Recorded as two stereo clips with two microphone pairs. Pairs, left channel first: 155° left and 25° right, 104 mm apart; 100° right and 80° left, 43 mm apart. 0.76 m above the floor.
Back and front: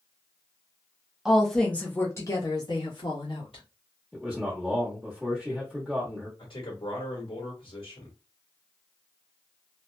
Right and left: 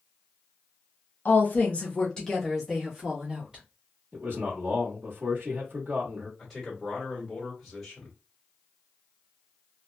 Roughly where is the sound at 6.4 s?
Behind.